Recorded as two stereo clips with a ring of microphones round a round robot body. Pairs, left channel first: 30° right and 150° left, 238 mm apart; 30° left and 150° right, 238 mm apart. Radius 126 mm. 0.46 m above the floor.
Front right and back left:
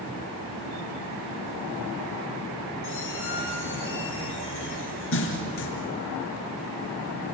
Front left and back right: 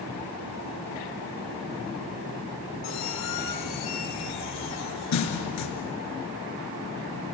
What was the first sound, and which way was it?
A squeak, 10° left.